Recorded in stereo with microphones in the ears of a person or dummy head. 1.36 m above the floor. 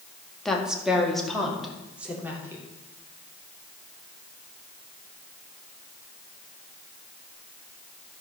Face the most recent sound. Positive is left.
turn(degrees=-15)  # may be behind; listen again after turning